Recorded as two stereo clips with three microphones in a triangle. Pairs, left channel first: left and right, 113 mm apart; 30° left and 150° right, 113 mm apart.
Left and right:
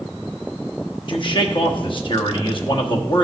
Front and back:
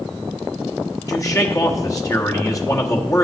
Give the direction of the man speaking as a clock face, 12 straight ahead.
9 o'clock.